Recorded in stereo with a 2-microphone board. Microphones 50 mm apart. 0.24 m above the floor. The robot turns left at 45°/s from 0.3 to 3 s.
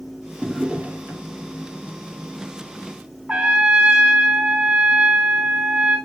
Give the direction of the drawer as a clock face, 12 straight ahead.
12 o'clock.